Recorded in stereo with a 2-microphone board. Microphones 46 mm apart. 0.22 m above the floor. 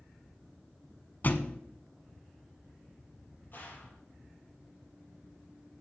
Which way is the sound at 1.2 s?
40° left (ahead or behind).